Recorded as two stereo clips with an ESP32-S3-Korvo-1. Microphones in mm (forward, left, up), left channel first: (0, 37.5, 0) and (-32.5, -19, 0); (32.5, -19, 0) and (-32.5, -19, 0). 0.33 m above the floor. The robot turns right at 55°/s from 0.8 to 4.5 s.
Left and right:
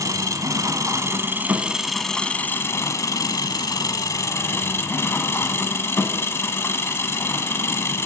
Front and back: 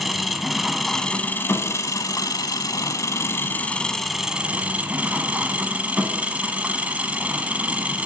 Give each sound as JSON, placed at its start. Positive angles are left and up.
{"t": 0.0, "sound": "an engine running", "azimuth_deg": -90, "distance_m": 1.0}